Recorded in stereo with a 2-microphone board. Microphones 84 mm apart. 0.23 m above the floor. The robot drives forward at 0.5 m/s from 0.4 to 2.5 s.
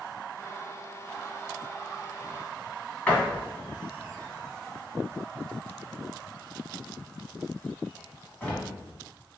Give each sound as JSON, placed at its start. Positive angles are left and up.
{"t": 3.1, "sound": "a door slam", "side_deg": 15, "distance_m": 1.4}